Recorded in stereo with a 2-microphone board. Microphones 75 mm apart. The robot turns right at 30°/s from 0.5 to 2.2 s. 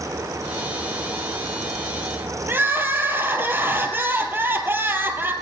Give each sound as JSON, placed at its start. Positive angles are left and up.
{"t": 2.5, "sound": "crying", "side_deg": -30, "distance_m": 2.0}